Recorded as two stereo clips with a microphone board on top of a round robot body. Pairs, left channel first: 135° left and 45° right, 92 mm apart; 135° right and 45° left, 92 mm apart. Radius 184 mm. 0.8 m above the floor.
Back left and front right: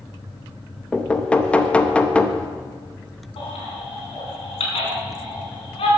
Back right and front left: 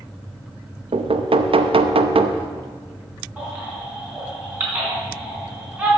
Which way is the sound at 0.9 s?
55° left.